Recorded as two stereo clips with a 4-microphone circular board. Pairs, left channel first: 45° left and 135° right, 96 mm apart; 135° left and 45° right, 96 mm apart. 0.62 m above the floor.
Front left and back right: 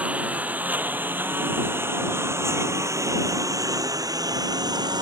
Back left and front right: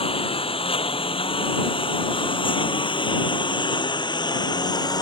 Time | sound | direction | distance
0.0 | a lawn mower | 145° left | ?